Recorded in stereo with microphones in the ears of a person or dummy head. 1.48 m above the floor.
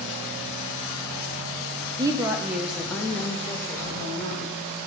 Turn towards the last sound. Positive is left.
turn(degrees=20)  # may be behind; listen again after turning